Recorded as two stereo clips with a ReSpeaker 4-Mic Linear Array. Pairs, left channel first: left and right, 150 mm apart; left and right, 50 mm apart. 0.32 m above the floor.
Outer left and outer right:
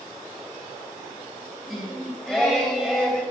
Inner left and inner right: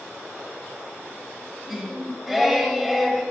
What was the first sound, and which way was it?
Singing, 5° left (ahead or behind).